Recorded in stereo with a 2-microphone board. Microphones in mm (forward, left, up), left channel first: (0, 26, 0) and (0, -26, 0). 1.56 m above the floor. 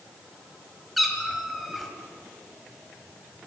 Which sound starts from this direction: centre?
A cat meowing, at 1.0 s.